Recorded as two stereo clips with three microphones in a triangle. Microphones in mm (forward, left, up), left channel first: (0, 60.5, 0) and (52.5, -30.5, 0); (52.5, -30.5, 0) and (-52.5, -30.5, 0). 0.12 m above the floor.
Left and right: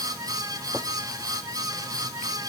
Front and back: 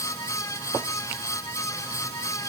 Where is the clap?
No clap in this recording.